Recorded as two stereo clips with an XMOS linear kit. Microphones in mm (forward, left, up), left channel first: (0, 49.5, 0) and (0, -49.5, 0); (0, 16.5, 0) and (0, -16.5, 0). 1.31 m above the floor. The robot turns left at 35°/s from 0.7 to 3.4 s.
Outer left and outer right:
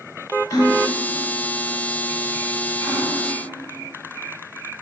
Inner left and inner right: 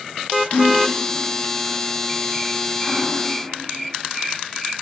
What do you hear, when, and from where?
0.5 s a gasp: 35° left (ahead or behind), 2 m; by 3.1 s 40° right (ahead or behind), 2 m